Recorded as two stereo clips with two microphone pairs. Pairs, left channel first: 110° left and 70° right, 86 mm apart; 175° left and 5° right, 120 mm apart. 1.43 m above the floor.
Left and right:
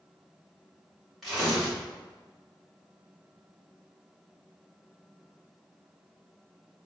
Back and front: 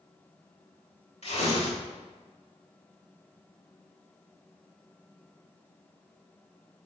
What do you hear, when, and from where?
1.2 s tearing paper: 160° right, 4.5 m